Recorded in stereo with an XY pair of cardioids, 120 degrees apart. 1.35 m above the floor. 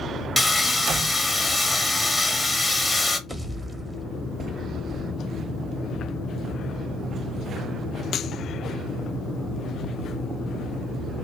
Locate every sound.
0.4 s sawing: 5° left, 0.8 m
3.3 s a pop: 5° right, 0.8 m